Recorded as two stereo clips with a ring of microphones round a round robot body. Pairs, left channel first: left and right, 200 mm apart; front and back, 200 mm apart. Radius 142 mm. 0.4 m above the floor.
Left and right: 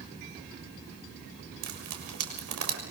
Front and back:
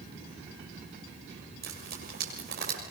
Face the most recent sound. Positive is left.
turn(degrees=-120)